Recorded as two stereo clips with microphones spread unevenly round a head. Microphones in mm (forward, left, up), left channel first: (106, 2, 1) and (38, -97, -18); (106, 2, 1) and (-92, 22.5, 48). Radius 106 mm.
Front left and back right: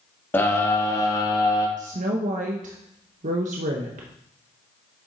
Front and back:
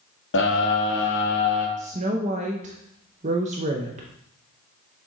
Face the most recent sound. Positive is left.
turn(degrees=-130)